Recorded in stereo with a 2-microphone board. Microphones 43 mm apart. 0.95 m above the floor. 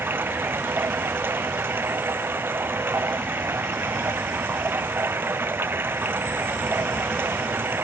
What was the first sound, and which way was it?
Running water, 55° right (ahead or behind).